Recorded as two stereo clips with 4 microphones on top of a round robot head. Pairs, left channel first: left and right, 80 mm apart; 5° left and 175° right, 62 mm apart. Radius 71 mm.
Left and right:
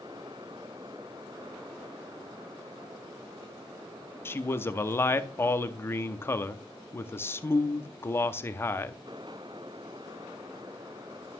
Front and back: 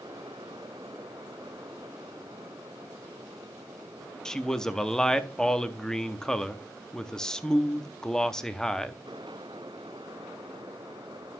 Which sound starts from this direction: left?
A man speaking, at 4.2 s.